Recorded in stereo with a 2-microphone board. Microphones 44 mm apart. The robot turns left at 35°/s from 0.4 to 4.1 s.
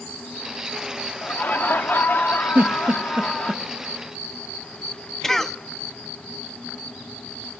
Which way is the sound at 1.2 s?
115° left.